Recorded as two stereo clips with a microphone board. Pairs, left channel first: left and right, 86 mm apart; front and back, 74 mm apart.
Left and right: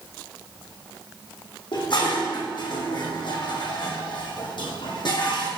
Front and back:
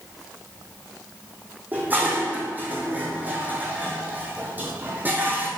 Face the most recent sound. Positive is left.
turn(degrees=115)